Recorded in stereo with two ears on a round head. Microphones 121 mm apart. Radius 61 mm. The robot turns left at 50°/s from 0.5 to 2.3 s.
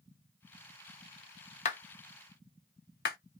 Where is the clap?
55° left (ahead or behind), 0.8 m; by 3.2 s 85° left, 0.8 m.